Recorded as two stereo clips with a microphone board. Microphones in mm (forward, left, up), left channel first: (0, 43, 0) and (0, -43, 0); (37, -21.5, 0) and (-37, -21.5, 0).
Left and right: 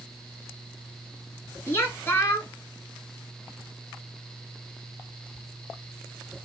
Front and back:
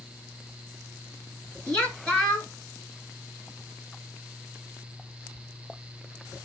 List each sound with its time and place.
1.7 s a woman speaking: 65° left, 1.2 m